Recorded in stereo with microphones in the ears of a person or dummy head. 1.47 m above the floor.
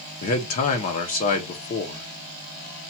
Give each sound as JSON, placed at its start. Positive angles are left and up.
{"t": 0.2, "sound": "a man speaking", "side_deg": 40, "distance_m": 0.9}